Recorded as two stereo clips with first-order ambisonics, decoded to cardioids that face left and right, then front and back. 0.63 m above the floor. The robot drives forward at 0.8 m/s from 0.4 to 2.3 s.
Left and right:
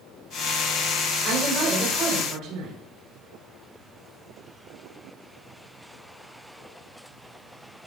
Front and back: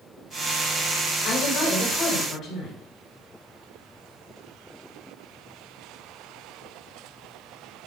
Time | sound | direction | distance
1.2 | a woman speaking | 45° right | 3 m